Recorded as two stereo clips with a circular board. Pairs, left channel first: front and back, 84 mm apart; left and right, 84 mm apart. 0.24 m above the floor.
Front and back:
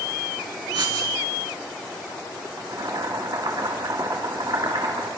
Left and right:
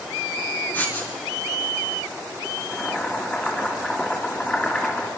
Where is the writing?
160° left, 2.5 m.